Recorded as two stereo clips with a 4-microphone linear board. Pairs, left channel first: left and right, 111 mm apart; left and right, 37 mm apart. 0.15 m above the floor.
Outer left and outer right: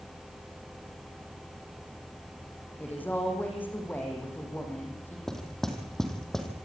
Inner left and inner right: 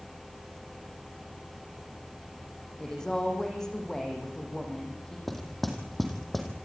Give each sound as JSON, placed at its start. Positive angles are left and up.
{"t": 2.8, "sound": "a woman speaking", "side_deg": 15, "distance_m": 7.5}
{"t": 5.3, "sound": "knocking", "side_deg": 5, "distance_m": 4.0}